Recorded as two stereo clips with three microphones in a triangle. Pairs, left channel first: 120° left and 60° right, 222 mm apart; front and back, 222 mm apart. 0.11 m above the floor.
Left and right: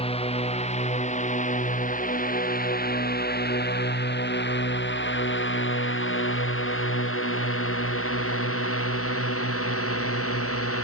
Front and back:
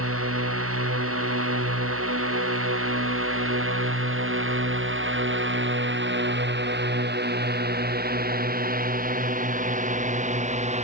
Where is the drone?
175° right; by 10.8 s 120° left.